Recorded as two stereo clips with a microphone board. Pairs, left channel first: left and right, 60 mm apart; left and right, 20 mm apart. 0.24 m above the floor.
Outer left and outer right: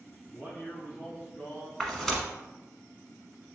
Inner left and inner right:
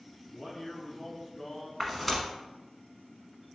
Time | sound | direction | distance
0.3 | a man speaking | 30° left (ahead or behind) | 1.8 m
1.8 | tearing paper | 10° left (ahead or behind) | 1.1 m